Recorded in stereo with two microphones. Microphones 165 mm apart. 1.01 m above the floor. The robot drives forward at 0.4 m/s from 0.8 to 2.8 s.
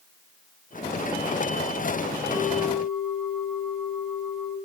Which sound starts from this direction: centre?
A bell, at 2.3 s.